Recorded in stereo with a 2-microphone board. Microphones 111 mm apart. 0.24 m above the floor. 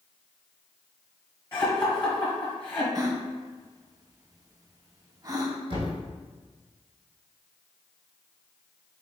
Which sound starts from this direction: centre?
Laughter, at 1.5 s.